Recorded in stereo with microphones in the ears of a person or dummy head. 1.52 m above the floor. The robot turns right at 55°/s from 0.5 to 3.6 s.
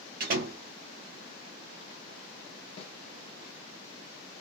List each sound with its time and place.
0.2 s a door slam: 55° right (ahead or behind), 1.0 m; by 0.6 s 50° right (ahead or behind), 1.0 m
2.8 s a snare drum: 35° left (ahead or behind), 1.1 m; by 3.0 s 45° left (ahead or behind), 1.1 m